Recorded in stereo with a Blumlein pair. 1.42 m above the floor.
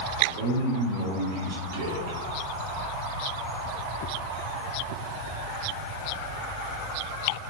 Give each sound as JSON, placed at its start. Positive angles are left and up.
{"t": 0.2, "sound": "a man speaking", "azimuth_deg": -55, "distance_m": 0.8}